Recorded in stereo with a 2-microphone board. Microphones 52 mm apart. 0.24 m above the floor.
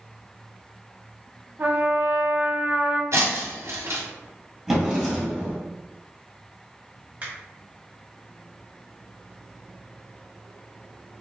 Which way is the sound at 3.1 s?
70° right (ahead or behind).